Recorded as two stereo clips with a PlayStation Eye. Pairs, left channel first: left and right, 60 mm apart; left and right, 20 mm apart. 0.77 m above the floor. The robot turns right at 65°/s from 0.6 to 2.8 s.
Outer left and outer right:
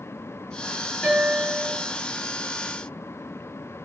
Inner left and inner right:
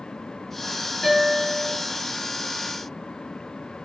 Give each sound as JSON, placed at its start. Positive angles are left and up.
{"t": 1.0, "sound": "a guitar", "azimuth_deg": 15, "distance_m": 1.5}